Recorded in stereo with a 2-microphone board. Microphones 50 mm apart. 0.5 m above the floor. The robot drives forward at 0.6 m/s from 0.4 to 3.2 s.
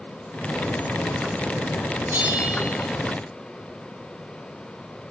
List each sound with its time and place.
2.1 s a bell: 70° right (ahead or behind), 3.5 m; by 2.7 s 65° right (ahead or behind), 4 m